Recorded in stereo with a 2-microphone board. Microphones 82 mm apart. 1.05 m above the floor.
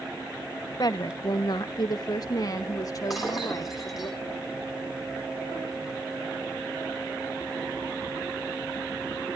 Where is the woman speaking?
50° left (ahead or behind), 0.8 m; by 4.1 s 40° left (ahead or behind), 2.5 m.